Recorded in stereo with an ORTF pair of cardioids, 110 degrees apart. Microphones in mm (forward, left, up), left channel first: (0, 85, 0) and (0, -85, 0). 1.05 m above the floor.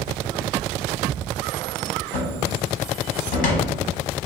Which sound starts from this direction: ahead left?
A cupboard door, at 2.1 s.